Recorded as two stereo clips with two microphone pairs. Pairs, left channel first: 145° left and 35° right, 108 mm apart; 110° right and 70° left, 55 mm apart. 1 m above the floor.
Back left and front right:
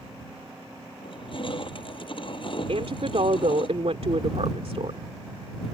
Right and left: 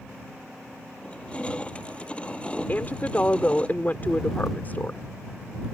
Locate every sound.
1.0 s crushing: straight behind
2.7 s a woman speaking: 55° right